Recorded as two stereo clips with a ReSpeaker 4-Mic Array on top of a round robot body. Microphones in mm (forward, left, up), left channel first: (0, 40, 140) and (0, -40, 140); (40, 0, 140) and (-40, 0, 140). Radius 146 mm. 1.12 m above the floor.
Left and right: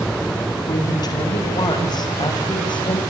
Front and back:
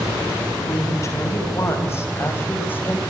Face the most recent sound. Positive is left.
turn(degrees=70)